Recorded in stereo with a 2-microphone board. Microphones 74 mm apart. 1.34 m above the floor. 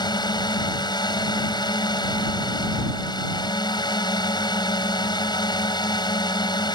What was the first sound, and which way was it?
A drone, 80° left.